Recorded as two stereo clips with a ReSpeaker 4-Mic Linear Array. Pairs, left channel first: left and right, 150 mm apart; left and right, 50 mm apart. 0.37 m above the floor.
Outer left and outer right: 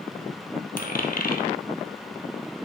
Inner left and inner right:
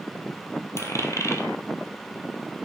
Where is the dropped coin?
80° left, 2 m.